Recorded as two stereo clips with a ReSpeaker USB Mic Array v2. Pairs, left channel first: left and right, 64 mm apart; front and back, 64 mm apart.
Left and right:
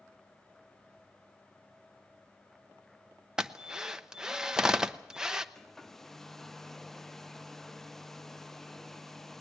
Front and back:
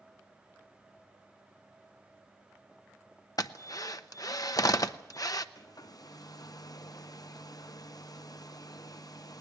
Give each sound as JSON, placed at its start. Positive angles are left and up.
{"t": 3.4, "sound": "a drill", "azimuth_deg": -10, "distance_m": 0.8}
{"t": 5.5, "sound": "a hair dryer", "azimuth_deg": 5, "distance_m": 0.7}